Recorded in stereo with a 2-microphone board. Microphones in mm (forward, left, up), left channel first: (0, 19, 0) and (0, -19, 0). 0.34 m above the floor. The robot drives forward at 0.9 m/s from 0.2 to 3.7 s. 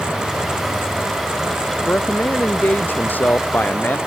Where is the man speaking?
50° left (ahead or behind); by 4.0 s 55° left (ahead or behind).